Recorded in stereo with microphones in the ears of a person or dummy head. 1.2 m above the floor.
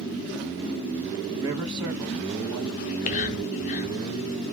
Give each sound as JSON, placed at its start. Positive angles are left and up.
{"t": 1.3, "sound": "a man speaking", "side_deg": -25, "distance_m": 1.0}
{"t": 2.8, "sound": "whispering", "side_deg": 35, "distance_m": 0.5}